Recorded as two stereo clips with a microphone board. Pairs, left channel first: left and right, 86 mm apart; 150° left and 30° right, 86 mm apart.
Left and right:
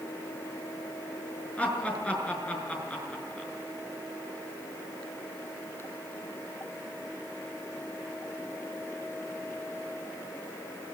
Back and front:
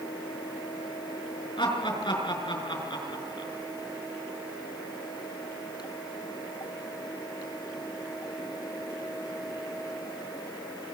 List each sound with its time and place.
1.6 s laughter: 165° left, 6 m